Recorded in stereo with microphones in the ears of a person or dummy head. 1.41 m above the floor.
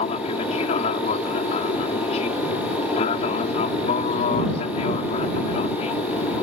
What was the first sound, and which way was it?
An aircraft, 45° left (ahead or behind).